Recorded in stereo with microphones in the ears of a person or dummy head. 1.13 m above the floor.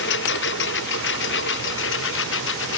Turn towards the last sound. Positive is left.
turn(degrees=70)  # may be behind; listen again after turning